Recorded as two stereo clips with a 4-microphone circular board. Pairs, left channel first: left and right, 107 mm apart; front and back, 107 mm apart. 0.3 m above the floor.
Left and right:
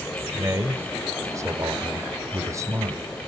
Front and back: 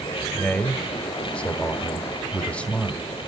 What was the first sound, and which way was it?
A man speaking, 70° right.